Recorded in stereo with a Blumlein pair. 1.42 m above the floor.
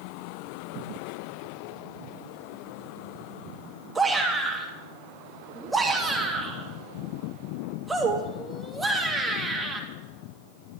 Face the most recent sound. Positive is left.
turn(degrees=-10)